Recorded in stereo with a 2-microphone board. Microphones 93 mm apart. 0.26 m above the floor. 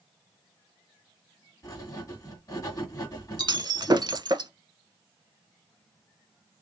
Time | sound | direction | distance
1.6 | writing | 40° left (ahead or behind) | 2 m
3.4 | breaking glass | 50° right (ahead or behind) | 0.6 m